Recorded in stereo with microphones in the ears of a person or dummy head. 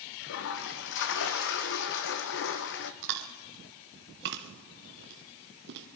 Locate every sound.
0.2 s a toilet flushing: 65° left (ahead or behind), 1.0 m
3.0 s chewing: 60° right (ahead or behind), 1.3 m